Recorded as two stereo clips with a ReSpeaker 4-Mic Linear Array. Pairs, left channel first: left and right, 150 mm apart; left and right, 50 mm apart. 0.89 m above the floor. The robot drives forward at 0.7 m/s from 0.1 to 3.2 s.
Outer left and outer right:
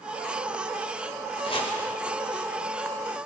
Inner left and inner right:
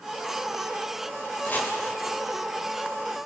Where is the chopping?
40° left (ahead or behind), 4 m.